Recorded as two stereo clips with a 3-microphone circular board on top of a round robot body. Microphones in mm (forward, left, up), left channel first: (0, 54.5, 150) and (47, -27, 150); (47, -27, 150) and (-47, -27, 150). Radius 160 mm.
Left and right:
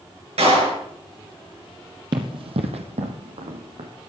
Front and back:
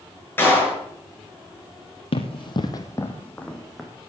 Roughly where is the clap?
Right.